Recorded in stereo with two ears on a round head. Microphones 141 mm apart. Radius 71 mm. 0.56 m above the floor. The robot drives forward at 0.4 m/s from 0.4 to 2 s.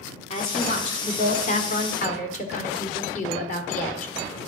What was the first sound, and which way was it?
A woman speaking, 40° left (ahead or behind).